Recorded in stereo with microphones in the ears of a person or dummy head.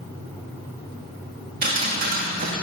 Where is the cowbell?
I don't hear a cowbell.